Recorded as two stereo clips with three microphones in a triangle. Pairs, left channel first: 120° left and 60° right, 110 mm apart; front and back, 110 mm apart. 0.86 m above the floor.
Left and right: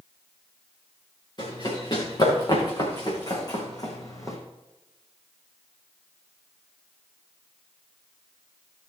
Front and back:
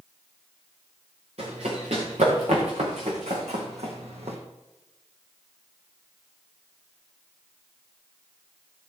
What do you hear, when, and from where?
1.4 s running footsteps: 170° left, 6 m; by 4.4 s straight behind, 2.5 m